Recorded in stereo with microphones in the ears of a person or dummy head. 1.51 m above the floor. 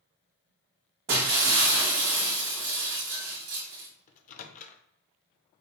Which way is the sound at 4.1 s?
50° left (ahead or behind).